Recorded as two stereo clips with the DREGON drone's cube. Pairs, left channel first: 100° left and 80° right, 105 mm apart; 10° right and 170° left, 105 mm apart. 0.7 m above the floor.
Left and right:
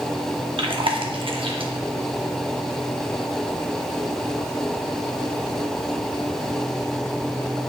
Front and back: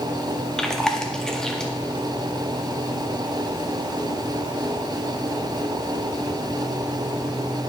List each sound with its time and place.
0.6 s chewing: 95° right, 0.7 m